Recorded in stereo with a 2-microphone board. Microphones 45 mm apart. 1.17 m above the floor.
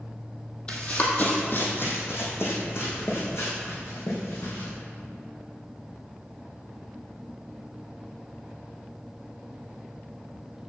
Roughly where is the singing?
I don't hear singing.